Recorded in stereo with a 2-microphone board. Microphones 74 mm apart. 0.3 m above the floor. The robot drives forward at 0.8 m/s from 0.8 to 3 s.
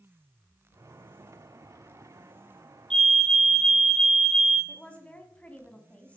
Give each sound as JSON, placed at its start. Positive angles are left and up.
{"t": 2.9, "sound": "a fire alarm", "side_deg": 10, "distance_m": 2.0}
{"t": 4.7, "sound": "a woman speaking", "side_deg": 15, "distance_m": 2.0}